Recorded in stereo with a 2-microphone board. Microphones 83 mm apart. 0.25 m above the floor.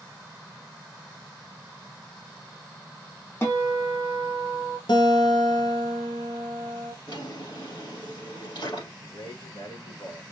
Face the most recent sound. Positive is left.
turn(degrees=65)  # may be behind; listen again after turning